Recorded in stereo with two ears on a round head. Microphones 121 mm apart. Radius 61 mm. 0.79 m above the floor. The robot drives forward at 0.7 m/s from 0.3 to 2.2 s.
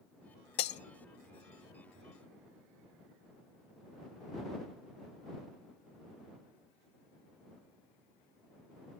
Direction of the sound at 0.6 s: 50° left (ahead or behind).